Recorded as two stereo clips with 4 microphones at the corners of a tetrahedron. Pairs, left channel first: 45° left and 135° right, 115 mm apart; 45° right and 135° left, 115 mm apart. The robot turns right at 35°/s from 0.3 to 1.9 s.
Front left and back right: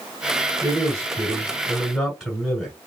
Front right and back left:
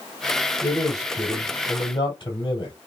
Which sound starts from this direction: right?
A man speaking, at 0.6 s.